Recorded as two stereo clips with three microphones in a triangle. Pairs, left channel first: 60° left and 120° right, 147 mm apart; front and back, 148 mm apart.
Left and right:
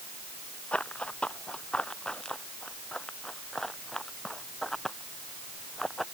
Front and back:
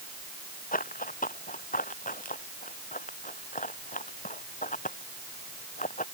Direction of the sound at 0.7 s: 25° right.